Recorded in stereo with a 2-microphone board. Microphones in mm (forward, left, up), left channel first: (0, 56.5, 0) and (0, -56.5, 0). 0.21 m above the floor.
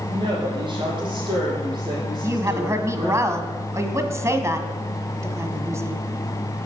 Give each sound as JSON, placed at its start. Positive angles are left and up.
{"t": 0.1, "sound": "a woman speaking", "side_deg": -45, "distance_m": 7.0}
{"t": 2.2, "sound": "a woman speaking", "side_deg": -25, "distance_m": 1.4}